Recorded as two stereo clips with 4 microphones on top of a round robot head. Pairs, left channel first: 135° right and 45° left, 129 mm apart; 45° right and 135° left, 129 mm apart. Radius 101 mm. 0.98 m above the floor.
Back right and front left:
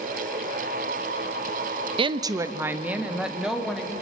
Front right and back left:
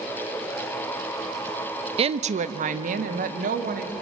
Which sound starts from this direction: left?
A woman speaking, at 2.0 s.